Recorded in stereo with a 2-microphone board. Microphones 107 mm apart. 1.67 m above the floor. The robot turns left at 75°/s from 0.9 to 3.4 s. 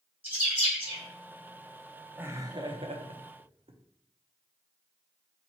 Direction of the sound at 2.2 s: 15° right (ahead or behind).